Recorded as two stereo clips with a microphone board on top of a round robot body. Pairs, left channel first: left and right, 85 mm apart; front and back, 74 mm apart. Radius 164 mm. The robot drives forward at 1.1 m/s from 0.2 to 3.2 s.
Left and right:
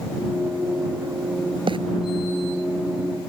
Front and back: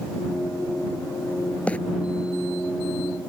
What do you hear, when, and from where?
1.7 s a bird: 70° right; by 1.8 s 75° right